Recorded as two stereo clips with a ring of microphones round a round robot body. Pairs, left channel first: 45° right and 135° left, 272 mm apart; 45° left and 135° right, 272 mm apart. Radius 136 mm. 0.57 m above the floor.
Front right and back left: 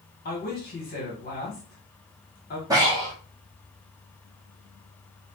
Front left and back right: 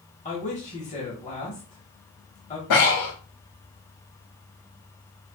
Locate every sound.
0.2 s a man speaking: 5° right, 1.3 m
2.7 s breathing: 60° left, 1.7 m